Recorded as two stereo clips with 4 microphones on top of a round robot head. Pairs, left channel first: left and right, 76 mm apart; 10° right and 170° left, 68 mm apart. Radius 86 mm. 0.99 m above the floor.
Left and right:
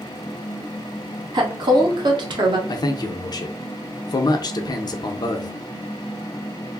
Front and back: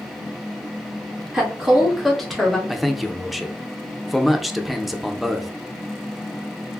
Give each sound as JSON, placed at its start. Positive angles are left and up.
{"t": 1.3, "sound": "a woman speaking", "azimuth_deg": -115, "distance_m": 1.3}
{"t": 2.7, "sound": "a man speaking", "azimuth_deg": 80, "distance_m": 0.5}